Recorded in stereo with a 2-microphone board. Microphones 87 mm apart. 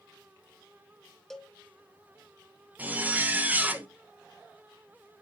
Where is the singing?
No singing in this recording.